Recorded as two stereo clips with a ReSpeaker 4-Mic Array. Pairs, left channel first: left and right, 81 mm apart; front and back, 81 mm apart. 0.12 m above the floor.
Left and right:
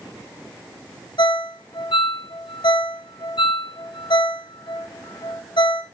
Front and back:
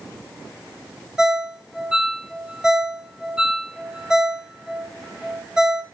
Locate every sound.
1.2 s a ringtone: 100° left, 2 m